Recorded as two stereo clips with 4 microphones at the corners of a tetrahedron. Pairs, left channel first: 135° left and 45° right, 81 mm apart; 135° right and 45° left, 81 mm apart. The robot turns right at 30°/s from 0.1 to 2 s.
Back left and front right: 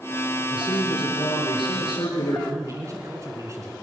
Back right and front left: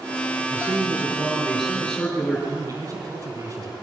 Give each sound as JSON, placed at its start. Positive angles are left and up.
{"t": 0.5, "sound": "a man speaking", "azimuth_deg": 105, "distance_m": 5.0}
{"t": 2.5, "sound": "a man speaking", "azimuth_deg": 0, "distance_m": 3.0}